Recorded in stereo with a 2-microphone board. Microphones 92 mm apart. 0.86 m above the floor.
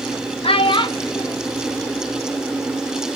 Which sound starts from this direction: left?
A child speaking, at 0.4 s.